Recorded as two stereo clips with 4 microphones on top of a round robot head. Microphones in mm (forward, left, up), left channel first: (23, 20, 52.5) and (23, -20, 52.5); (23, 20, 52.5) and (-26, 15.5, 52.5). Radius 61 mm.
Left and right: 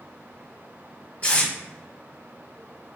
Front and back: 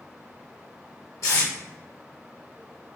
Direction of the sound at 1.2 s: 30° left.